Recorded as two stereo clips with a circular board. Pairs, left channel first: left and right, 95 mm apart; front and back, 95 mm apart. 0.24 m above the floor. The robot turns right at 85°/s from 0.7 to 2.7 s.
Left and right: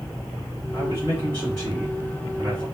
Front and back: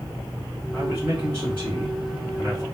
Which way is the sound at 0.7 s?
100° left.